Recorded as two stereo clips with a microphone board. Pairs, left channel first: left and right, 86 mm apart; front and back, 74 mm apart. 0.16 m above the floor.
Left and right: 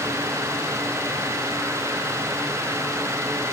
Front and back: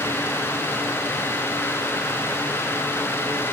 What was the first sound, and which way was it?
Only background noise.